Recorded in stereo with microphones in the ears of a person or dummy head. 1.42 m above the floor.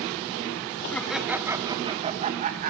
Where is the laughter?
10° left (ahead or behind), 0.9 m; by 2.7 s 45° right (ahead or behind), 1.4 m.